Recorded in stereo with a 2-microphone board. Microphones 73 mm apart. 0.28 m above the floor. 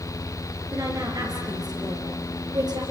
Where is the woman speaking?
50° right (ahead or behind), 5 m; by 2.8 s 60° right (ahead or behind), 5.5 m.